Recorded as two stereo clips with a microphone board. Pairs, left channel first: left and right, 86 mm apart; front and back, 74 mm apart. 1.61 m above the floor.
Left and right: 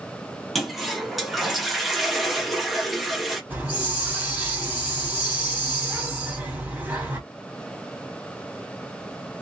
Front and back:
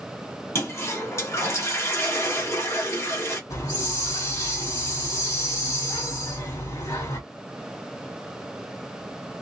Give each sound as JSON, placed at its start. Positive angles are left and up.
{"t": 0.6, "sound": "a toilet flushing", "azimuth_deg": 0, "distance_m": 1.0}
{"t": 3.5, "sound": "a hiss", "azimuth_deg": -25, "distance_m": 1.8}